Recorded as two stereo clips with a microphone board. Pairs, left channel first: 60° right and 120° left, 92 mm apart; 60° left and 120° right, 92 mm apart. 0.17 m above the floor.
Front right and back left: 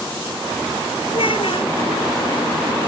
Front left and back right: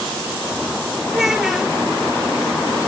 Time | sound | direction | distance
1.1 | a child speaking | 35° right | ?